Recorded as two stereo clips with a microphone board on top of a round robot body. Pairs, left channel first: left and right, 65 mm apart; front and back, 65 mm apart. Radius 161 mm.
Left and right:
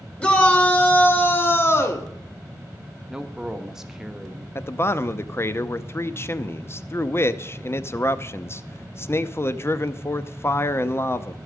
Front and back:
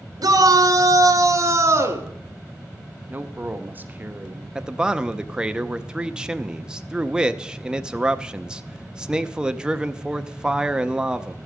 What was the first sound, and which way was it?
A shout, 160° left.